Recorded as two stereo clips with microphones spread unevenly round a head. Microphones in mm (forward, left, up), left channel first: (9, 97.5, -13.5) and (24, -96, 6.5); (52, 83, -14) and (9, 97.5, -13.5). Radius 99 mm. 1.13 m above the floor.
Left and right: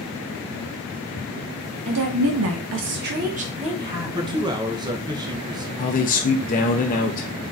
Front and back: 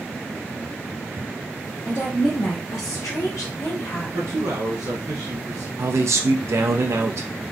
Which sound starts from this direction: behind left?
A man speaking, at 5.8 s.